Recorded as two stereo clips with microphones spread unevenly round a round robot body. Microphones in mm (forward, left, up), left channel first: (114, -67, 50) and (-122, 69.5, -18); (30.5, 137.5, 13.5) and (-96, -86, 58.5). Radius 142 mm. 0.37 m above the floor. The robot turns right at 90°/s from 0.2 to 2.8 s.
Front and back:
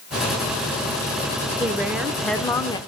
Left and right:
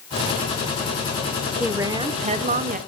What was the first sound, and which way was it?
A woman speaking, 140° left.